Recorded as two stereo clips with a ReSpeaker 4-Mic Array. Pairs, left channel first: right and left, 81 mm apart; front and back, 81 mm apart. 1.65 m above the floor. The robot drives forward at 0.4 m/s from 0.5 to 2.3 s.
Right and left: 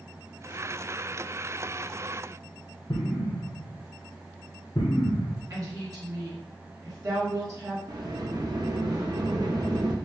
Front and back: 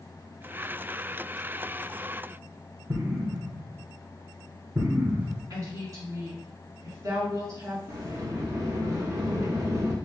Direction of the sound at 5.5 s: 135° left.